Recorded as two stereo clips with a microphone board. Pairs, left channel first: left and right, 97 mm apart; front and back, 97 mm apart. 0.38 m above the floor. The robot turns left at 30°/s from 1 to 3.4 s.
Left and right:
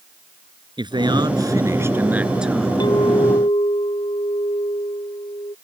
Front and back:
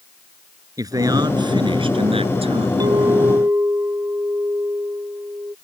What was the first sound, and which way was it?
A man speaking, 125° right.